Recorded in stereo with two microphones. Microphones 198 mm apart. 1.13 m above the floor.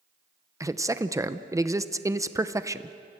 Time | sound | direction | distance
0.6 | a man speaking | 15° right (ahead or behind) | 0.8 m